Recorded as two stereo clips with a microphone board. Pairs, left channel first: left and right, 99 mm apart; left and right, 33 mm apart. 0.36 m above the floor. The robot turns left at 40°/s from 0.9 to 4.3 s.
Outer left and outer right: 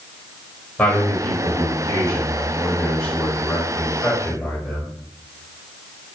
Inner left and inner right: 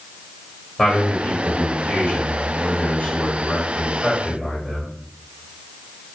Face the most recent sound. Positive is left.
turn(degrees=25)